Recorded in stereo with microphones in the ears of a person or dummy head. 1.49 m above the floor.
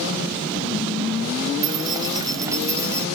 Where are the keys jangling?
15° right (ahead or behind); by 3.1 s 10° right (ahead or behind).